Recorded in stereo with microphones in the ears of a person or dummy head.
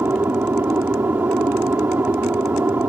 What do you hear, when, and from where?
0.0 s an aircraft: 10° right (ahead or behind)